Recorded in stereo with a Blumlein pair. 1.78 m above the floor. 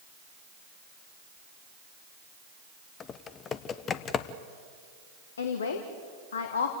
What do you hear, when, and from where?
3.0 s typing on a keyboard: 25° left, 0.9 m
5.4 s a woman speaking: 65° left, 1.6 m